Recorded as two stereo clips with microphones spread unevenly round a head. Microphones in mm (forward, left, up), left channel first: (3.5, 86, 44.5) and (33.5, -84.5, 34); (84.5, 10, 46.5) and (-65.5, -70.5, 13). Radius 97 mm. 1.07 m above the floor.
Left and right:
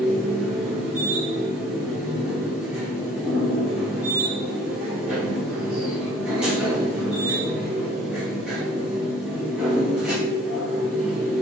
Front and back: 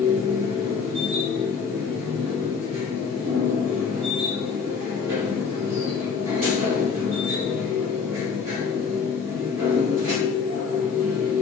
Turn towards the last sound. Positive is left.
turn(degrees=-165)